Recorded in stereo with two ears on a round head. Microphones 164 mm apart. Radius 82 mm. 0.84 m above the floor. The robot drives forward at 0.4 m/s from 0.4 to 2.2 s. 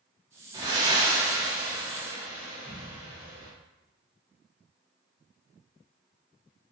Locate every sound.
0.5 s breathing: 25° right (ahead or behind), 0.8 m; by 3.5 s 15° right (ahead or behind), 1.4 m